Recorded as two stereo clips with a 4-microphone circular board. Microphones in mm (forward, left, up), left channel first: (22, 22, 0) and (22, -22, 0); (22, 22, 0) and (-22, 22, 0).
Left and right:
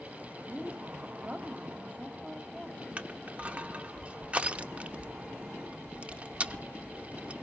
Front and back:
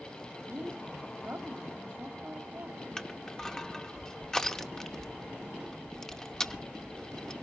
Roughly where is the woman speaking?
Behind right.